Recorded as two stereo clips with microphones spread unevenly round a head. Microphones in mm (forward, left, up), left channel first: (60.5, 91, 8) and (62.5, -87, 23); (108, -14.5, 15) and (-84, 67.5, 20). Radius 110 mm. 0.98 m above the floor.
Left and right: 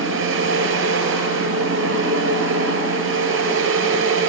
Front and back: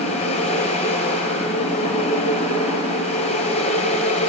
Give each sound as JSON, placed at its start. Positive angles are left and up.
{"t": 0.0, "sound": "a fan", "azimuth_deg": -90, "distance_m": 6.0}